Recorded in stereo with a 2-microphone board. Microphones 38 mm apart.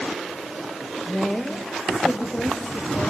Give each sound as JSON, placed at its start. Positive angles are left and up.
{"t": 1.1, "sound": "a woman speaking", "side_deg": 0, "distance_m": 1.5}